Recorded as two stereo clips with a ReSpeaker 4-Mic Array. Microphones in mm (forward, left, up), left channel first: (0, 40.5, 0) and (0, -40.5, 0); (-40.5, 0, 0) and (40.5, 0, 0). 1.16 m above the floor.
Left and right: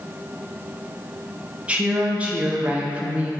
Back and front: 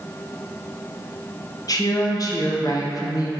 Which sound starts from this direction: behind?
A woman speaking, at 1.7 s.